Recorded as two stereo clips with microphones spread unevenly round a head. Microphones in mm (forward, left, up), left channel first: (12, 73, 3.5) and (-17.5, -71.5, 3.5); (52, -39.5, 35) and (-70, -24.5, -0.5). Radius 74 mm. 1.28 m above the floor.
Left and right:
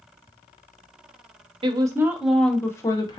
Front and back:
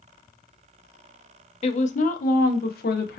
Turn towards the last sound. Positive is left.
turn(degrees=15)